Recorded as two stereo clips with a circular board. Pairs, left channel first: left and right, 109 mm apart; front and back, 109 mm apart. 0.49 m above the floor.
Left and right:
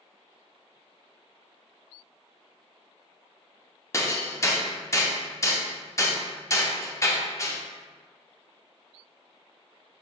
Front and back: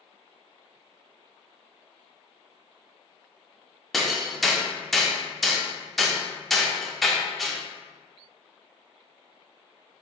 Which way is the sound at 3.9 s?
85° left.